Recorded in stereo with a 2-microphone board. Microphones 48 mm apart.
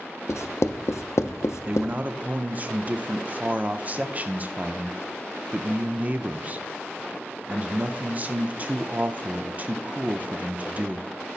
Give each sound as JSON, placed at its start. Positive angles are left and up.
{"t": 0.3, "sound": "writing", "side_deg": 80, "distance_m": 0.5}
{"t": 1.7, "sound": "a man speaking", "side_deg": -35, "distance_m": 0.5}